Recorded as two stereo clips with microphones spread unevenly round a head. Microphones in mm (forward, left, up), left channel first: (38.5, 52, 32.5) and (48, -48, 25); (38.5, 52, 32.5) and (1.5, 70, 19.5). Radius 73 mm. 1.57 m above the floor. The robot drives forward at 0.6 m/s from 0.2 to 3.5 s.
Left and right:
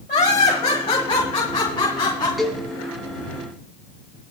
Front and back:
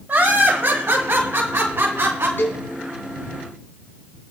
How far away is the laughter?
About 1.3 m.